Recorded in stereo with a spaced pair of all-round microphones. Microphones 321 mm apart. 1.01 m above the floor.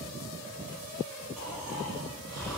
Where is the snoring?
Centre (ahead or behind), 4 m.